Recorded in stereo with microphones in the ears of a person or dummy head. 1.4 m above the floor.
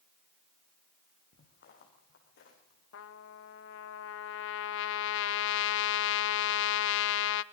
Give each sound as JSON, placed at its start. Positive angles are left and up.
{"t": 1.3, "sound": "footsteps", "side_deg": 60, "distance_m": 5.5}
{"t": 2.9, "sound": "a trumpet", "side_deg": 70, "distance_m": 0.8}